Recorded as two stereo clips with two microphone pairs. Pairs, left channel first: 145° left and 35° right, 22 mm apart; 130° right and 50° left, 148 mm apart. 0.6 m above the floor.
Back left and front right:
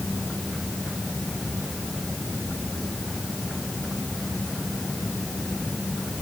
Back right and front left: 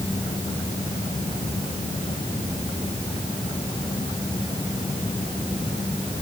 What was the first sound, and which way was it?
Only background noise.